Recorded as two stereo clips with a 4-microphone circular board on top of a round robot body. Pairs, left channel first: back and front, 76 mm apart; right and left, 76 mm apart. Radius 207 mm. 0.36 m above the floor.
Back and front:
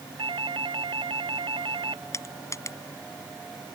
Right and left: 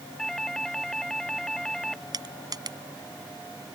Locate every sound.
0.2 s a doorbell: 5° right
2.1 s crushing: 125° left